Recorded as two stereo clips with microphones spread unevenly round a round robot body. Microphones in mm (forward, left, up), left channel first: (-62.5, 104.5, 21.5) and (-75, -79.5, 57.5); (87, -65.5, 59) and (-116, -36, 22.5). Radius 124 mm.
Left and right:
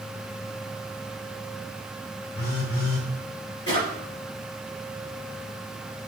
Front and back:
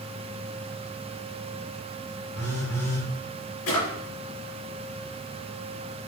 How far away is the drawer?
About 3 m.